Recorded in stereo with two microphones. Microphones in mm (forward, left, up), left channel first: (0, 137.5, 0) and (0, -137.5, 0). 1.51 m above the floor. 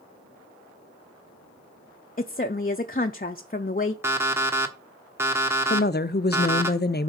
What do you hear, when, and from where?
2.2 s a woman speaking: 30° left (ahead or behind), 0.5 m
4.0 s an alarm clock: 10° right (ahead or behind), 1.2 m
5.7 s a woman speaking: 35° left (ahead or behind), 0.6 m